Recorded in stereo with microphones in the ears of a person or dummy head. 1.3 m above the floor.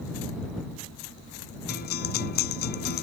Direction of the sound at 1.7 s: 50° left (ahead or behind).